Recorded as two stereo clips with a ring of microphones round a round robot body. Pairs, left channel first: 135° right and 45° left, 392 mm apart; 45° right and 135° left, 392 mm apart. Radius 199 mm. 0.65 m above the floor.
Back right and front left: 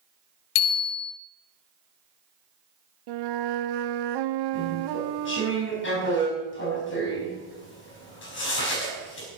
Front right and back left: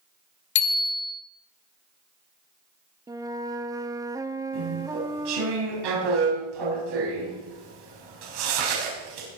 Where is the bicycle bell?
110° right, 2.5 m.